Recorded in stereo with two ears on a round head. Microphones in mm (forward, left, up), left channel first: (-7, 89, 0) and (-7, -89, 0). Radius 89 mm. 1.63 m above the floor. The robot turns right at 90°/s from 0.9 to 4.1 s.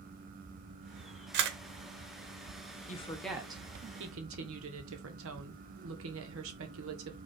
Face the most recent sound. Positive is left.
turn(degrees=-105)